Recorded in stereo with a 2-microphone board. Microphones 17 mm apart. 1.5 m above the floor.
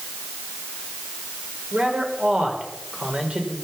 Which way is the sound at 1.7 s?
75° right (ahead or behind).